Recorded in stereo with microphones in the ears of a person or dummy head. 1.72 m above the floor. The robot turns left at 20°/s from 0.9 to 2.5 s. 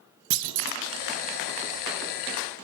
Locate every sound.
0.3 s a clunk: 80° right, 0.9 m